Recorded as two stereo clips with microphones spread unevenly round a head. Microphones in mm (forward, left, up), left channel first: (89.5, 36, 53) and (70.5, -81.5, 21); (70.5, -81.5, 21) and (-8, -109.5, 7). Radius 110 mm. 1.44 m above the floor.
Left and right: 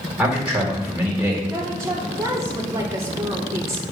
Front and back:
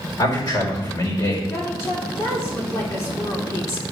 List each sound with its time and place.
0.2 s a man speaking: 15° right, 4.5 m
1.5 s a woman speaking: 30° right, 2.5 m